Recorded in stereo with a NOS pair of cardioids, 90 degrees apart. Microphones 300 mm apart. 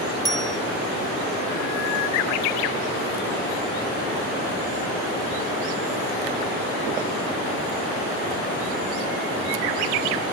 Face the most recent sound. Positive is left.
turn(degrees=15)